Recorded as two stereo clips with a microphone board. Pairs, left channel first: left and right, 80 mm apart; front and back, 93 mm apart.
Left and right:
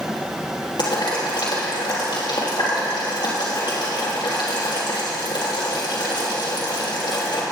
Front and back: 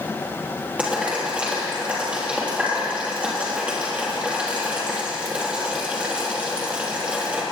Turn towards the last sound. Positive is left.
turn(degrees=105)